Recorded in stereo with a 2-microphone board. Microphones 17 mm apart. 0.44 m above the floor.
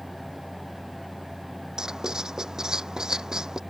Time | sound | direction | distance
1.8 | writing | 45° right (ahead or behind) | ?